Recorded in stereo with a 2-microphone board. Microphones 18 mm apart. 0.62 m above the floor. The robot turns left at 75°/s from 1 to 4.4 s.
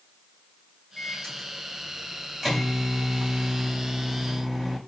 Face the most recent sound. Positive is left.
turn(degrees=-155)